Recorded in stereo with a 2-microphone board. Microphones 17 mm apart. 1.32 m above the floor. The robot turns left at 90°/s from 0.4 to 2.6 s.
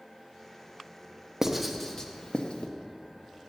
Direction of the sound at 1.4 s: 20° right (ahead or behind).